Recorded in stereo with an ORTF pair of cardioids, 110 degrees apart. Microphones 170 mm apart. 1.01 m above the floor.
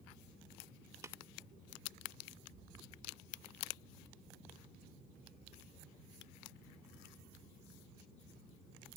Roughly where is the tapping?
Ahead.